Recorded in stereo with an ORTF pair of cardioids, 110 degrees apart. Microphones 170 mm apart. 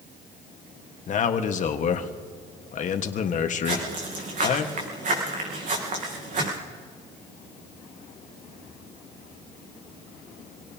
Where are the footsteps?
45° right, 4.5 m.